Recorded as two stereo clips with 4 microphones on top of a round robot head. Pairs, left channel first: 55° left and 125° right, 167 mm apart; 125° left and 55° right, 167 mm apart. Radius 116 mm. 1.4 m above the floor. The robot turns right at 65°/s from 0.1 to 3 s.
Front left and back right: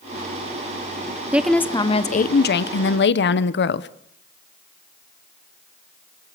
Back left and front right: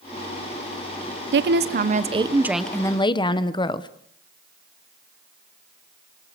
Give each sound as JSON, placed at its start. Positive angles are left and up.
{"t": 1.3, "sound": "a woman speaking", "azimuth_deg": -45, "distance_m": 1.0}